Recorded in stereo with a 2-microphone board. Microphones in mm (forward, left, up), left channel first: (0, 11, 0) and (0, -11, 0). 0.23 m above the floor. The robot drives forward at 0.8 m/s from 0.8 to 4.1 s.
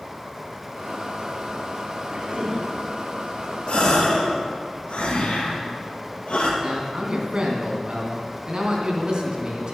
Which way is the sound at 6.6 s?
40° right (ahead or behind).